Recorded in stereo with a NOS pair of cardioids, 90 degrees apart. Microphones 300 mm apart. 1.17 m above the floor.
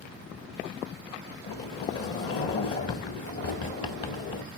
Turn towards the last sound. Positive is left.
turn(degrees=50)